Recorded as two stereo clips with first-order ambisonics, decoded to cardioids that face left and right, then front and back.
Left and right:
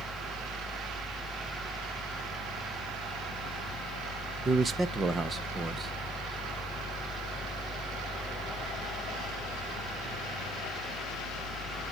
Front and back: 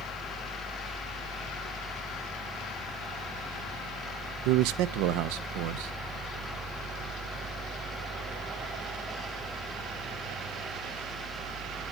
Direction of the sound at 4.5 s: 165° right.